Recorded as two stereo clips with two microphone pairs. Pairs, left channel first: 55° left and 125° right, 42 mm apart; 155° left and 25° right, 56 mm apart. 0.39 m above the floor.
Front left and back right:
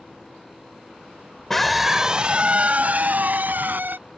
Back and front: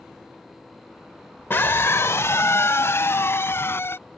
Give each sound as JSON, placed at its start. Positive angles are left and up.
{"t": 1.5, "sound": "a scream", "azimuth_deg": 130}